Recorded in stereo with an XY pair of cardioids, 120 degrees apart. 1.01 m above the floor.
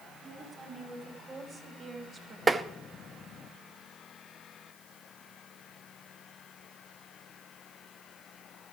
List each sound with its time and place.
0.2 s a woman speaking: 30° right, 6 m; by 2.4 s 45° right, 4 m
2.5 s tapping: 20° right, 0.9 m